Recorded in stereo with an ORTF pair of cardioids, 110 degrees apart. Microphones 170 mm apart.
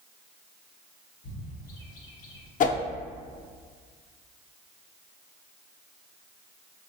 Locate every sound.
1.2 s a bird: 65° left, 1.4 m
2.6 s a whoosh: 55° left, 0.6 m